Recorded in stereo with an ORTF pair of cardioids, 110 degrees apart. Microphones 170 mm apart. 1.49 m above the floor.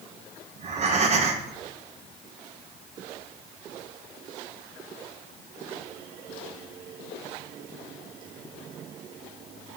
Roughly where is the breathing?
Ahead right.